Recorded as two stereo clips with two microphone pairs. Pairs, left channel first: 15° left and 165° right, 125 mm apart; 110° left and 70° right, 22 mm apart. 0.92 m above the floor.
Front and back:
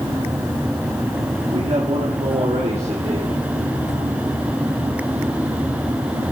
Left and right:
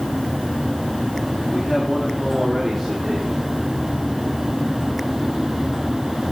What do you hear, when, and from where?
1.5 s a man speaking: straight behind, 1.9 m; by 3.4 s 160° right, 3 m